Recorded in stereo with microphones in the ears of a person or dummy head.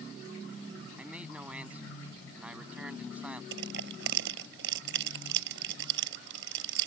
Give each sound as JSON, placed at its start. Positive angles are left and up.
{"t": 1.0, "sound": "a man speaking", "side_deg": -5}
{"t": 3.5, "sound": "crushing", "side_deg": -75}